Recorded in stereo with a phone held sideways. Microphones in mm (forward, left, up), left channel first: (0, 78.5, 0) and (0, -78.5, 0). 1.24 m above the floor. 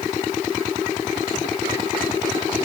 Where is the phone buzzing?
I don't hear a phone buzzing.